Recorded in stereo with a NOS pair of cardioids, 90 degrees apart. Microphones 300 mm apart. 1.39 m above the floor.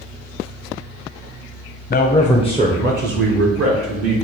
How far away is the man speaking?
About 0.5 m.